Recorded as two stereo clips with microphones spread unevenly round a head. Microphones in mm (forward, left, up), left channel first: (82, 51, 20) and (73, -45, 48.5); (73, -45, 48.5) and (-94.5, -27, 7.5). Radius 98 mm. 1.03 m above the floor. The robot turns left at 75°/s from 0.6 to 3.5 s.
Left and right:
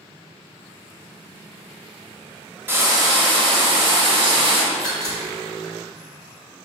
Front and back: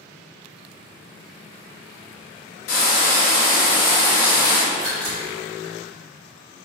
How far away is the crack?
About 1.8 m.